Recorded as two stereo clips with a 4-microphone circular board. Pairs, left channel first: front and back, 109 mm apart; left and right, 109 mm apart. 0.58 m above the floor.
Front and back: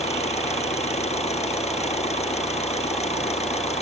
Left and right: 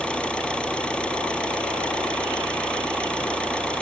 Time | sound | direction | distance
0.0 | an engine running | 10° left | ?